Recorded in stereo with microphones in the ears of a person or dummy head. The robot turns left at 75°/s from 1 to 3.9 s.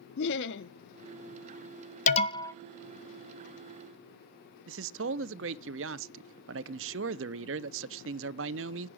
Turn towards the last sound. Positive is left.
turn(degrees=-70)  # may be behind; listen again after turning